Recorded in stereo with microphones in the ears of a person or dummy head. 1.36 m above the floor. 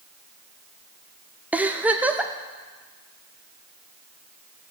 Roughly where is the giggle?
Centre.